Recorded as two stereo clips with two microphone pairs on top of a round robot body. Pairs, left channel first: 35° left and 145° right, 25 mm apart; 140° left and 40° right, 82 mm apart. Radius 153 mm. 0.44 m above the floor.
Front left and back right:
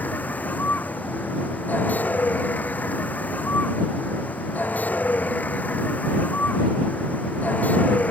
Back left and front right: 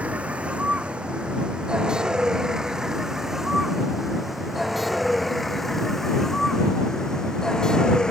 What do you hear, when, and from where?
0.0 s a vehicle: 35° left; by 8.1 s 60° left